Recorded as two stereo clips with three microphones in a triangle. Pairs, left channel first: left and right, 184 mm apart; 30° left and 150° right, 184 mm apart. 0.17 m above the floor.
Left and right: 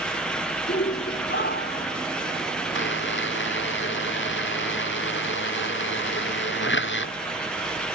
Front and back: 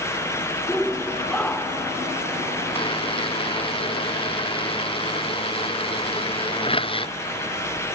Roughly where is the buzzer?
Left.